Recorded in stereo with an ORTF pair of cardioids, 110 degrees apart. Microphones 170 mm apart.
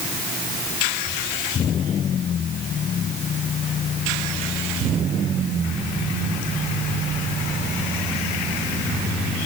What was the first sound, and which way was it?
Only background noise.